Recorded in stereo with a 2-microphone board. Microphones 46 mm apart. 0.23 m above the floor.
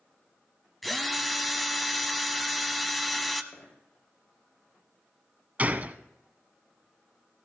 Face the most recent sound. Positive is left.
turn(degrees=-35)  # may be behind; listen again after turning